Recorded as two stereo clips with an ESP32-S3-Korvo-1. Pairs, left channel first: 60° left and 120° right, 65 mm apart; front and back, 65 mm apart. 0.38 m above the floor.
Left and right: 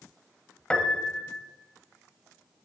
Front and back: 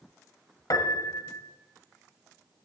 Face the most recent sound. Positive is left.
turn(degrees=-15)